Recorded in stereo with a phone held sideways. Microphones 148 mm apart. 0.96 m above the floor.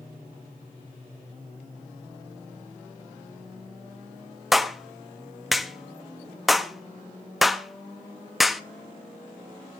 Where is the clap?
Centre (ahead or behind), 0.6 m.